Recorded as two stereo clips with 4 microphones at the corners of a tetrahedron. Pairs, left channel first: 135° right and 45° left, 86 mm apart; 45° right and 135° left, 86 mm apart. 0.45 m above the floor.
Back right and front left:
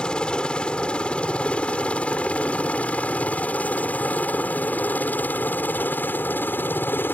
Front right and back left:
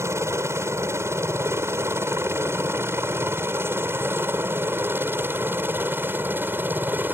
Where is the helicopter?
155° left; by 7.2 s straight behind.